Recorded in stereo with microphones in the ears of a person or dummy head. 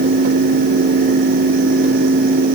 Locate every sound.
Only background noise.